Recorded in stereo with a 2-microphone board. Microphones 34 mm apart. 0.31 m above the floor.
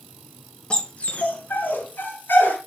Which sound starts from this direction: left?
A dog barking, at 0.7 s.